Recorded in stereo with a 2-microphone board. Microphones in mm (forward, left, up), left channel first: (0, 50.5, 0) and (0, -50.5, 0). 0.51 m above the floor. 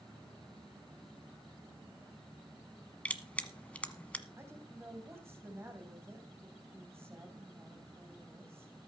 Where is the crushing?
15° left (ahead or behind), 1.1 m.